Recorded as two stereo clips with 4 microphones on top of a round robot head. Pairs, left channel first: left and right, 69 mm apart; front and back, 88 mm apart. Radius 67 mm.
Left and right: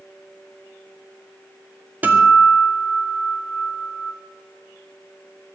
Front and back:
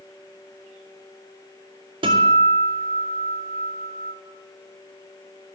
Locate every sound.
2.0 s a guitar: 155° right, 2.5 m